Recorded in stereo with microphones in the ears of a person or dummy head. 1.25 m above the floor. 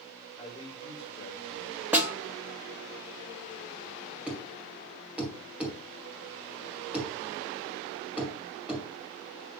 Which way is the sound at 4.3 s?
10° right (ahead or behind).